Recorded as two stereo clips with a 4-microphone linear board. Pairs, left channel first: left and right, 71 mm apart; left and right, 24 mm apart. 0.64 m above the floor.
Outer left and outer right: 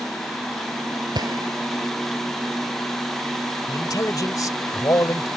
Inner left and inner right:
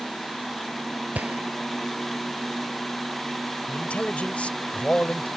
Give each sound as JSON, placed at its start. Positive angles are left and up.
{"t": 1.1, "sound": "a gunshot", "side_deg": -70}
{"t": 3.7, "sound": "a man speaking", "side_deg": 55}